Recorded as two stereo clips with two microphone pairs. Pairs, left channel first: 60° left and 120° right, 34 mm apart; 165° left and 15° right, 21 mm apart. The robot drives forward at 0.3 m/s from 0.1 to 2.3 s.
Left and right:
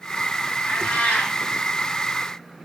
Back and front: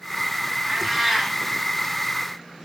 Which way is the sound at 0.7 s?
60° left.